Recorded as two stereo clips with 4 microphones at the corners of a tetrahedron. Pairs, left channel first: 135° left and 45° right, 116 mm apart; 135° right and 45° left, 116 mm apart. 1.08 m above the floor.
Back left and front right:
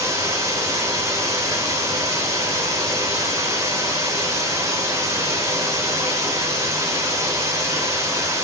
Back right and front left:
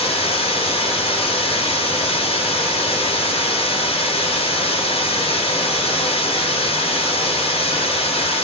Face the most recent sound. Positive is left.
turn(degrees=-110)